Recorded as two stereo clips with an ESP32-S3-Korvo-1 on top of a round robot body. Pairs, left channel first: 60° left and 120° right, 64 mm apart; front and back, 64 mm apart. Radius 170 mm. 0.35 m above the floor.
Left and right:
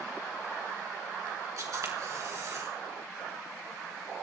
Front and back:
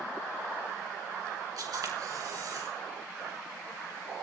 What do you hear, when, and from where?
1.6 s a camera shutter: 160° right, 4.5 m